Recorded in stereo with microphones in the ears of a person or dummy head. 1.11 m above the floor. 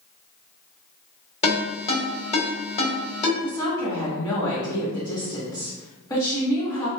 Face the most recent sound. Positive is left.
turn(degrees=20)  # may be behind; listen again after turning